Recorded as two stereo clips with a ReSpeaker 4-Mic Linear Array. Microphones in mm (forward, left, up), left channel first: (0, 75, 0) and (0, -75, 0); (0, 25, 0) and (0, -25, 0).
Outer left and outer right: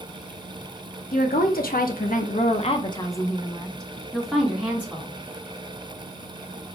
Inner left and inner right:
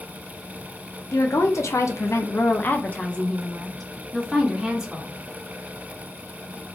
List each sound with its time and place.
1.1 s a woman speaking: 70° left (ahead or behind), 1.3 m; by 5.1 s 10° right (ahead or behind), 2 m